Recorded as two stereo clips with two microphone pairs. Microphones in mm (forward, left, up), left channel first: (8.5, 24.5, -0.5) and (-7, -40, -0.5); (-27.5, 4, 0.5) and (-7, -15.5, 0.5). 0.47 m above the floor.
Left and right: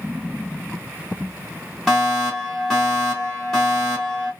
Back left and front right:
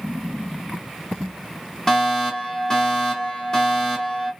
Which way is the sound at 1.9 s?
160° left.